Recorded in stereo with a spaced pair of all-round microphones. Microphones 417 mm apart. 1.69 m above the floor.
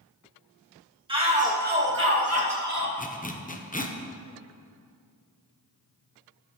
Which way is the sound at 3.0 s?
20° left (ahead or behind).